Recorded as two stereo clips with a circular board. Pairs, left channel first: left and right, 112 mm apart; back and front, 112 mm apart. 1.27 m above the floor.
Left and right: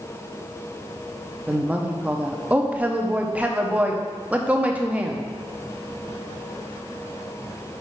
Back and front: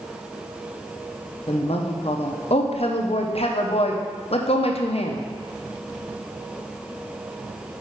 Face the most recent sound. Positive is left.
turn(degrees=-165)